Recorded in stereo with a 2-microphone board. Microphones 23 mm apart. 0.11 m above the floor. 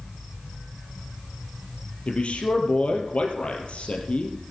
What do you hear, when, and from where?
2.1 s a man speaking: 60° left (ahead or behind), 3 m